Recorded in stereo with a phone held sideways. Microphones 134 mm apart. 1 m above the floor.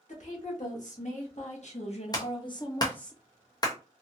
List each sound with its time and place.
0.1 s a woman speaking: 65° left (ahead or behind), 1.9 m; by 3.1 s 5° left (ahead or behind), 0.7 m
2.1 s a clap: 30° left (ahead or behind), 0.8 m